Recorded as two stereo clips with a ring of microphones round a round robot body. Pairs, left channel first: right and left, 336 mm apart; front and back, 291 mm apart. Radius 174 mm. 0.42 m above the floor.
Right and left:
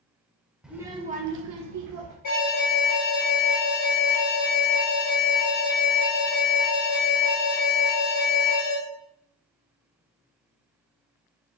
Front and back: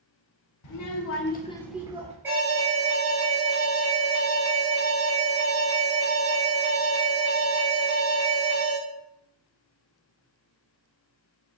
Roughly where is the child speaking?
Ahead.